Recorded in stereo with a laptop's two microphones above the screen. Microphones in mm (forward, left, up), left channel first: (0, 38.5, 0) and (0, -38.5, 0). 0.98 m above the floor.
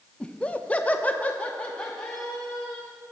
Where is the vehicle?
I don't hear a vehicle.